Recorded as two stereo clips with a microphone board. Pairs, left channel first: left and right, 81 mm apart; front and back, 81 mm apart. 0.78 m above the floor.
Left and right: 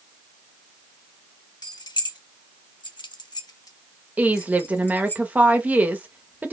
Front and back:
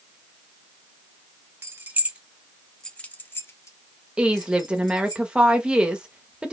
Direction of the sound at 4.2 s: 125° right.